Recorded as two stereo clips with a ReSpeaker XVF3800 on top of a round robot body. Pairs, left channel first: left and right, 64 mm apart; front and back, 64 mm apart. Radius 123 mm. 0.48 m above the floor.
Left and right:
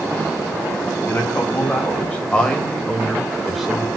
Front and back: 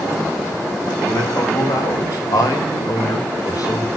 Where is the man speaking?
30° left, 4.5 m; by 3.9 s 10° right, 3 m.